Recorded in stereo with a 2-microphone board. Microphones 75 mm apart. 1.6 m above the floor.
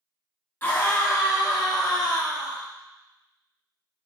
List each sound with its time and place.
0.6 s a scream: 35° left (ahead or behind), 2.5 m; by 2.6 s 70° left (ahead or behind), 4 m